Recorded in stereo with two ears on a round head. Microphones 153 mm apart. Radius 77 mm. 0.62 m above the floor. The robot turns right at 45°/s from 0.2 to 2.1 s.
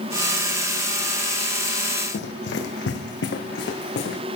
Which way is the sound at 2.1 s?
70° left (ahead or behind).